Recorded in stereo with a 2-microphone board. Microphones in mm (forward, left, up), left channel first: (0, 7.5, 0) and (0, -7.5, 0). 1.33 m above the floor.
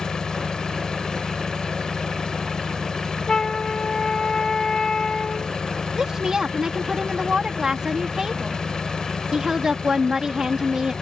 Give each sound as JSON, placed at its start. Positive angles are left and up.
{"t": 0.0, "sound": "an engine running", "side_deg": 70}
{"t": 3.3, "sound": "a flute", "side_deg": 50}
{"t": 6.0, "sound": "a woman speaking", "side_deg": -50}